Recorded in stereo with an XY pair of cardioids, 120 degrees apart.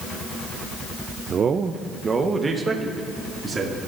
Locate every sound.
1.3 s a man speaking: 40° right, 0.5 m; by 3.8 s 25° right, 2.5 m